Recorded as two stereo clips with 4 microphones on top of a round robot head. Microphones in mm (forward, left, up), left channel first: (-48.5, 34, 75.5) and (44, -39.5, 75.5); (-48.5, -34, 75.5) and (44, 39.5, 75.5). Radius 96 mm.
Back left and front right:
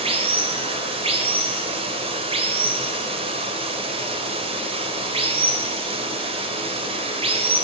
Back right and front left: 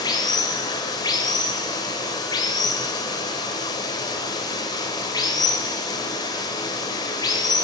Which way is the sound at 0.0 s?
80° right.